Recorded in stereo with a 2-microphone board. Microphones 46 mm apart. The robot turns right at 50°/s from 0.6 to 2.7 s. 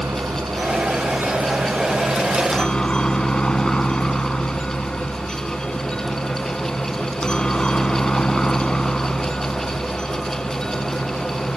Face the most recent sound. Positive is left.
turn(degrees=20)